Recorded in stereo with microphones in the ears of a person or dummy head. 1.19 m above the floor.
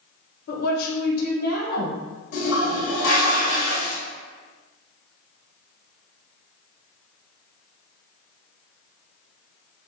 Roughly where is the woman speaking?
Left.